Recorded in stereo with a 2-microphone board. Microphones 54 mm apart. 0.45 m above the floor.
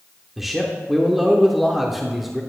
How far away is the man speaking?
About 0.7 m.